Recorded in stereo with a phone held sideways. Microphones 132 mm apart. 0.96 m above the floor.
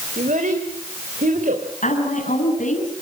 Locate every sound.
0.2 s a child speaking: 85° right, 3.5 m
1.8 s a woman speaking: 75° left (ahead or behind), 8 m